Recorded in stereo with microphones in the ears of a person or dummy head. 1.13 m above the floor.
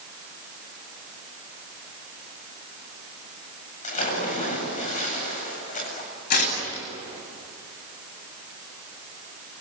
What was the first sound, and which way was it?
A splash, 40° left (ahead or behind).